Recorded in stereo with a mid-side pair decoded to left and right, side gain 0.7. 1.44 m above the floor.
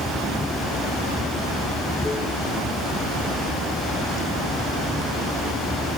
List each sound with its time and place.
0.0 s running water: 10° left